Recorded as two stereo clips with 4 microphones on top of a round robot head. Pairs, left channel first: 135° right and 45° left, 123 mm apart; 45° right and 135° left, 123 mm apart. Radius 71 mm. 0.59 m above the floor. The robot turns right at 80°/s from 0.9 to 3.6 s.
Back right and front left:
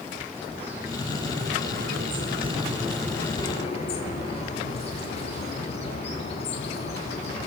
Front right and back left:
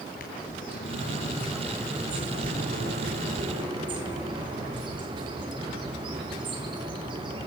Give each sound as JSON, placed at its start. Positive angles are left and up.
{"t": 0.2, "sound": "a bird", "azimuth_deg": -30, "distance_m": 8.5}